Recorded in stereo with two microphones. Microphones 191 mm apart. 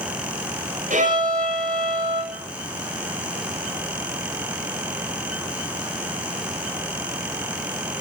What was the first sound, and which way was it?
A violin, 45° right (ahead or behind).